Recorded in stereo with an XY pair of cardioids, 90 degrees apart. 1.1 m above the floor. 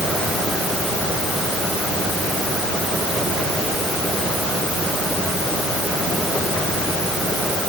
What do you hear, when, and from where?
Only background noise.